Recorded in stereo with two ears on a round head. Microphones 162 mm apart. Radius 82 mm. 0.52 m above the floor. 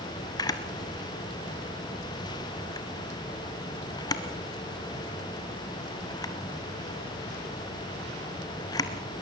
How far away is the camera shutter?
About 1.5 m.